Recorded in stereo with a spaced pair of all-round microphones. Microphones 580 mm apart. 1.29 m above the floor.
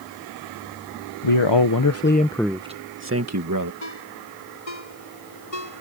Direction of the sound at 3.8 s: 75° left (ahead or behind).